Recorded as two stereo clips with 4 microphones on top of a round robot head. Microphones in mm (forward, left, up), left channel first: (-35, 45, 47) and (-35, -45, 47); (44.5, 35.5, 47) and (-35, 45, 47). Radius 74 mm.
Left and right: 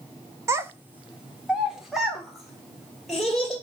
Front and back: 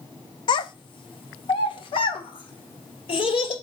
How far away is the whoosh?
No whoosh in this recording.